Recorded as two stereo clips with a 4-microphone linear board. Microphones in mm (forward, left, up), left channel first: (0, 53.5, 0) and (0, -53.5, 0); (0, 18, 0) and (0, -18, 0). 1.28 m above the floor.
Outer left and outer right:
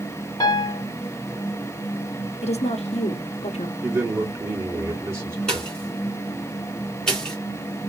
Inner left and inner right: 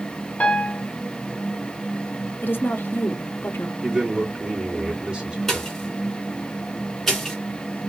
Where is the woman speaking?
85° left, 0.7 m.